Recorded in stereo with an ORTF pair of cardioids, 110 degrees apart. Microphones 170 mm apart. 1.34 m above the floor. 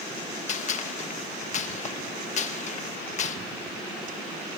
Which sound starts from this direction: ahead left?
A gunshot, at 0.5 s.